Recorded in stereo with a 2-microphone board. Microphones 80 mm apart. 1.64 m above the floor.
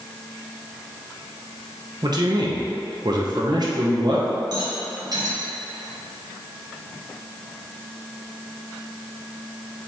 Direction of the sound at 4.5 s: 55° right (ahead or behind).